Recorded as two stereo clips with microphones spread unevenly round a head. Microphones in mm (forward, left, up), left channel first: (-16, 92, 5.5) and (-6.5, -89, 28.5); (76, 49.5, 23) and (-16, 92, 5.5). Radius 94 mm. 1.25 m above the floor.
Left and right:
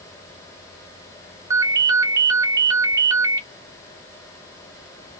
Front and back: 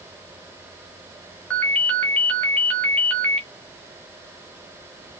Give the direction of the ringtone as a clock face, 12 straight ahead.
2 o'clock.